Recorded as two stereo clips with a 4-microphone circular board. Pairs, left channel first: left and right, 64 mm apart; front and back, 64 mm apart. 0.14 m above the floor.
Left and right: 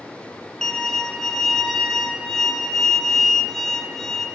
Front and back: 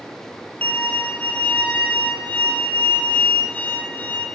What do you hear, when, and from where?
0.6 s a violin: 15° left, 1.0 m